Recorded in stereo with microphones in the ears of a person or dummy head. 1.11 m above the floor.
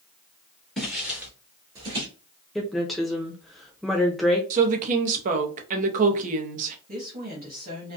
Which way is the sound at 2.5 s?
Centre (ahead or behind).